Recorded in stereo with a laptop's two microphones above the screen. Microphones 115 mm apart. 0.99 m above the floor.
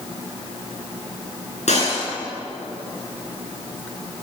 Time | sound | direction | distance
1.7 | breaking glass | 70° left (ahead or behind) | 8 m